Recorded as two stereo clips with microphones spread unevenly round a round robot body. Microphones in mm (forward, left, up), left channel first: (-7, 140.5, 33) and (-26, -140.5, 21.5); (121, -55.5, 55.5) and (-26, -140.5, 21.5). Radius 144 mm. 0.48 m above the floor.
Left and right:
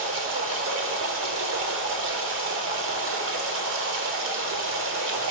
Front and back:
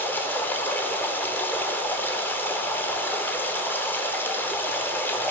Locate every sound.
0.0 s running water: 55° right, 1.0 m